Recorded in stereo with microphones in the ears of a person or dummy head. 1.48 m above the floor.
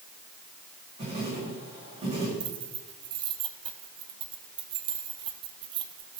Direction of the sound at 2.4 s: 25° right (ahead or behind).